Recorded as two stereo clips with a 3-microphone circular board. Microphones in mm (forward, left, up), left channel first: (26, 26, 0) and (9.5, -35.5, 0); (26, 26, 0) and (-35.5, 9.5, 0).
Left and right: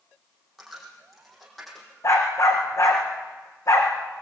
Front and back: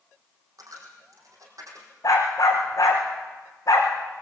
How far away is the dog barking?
About 6 m.